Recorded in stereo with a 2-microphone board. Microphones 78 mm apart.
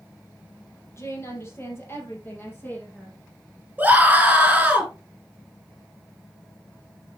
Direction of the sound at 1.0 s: 40° left (ahead or behind).